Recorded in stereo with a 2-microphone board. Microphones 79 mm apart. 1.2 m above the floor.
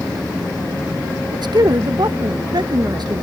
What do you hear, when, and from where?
1.3 s a man speaking: 65° right (ahead or behind)